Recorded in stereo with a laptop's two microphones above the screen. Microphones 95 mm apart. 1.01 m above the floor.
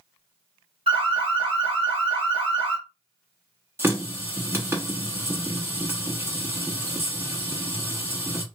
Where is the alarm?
60° right (ahead or behind), 1.9 m.